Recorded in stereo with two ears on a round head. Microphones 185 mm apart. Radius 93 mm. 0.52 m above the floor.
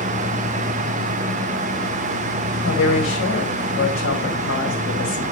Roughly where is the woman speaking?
Left.